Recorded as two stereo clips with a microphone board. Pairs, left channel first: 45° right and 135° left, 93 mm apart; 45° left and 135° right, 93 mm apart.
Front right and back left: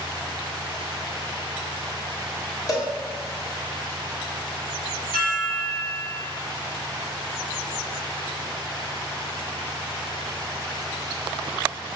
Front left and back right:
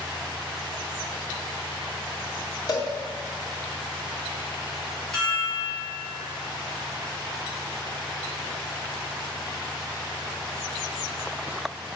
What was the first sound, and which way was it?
A cowbell, 5° left.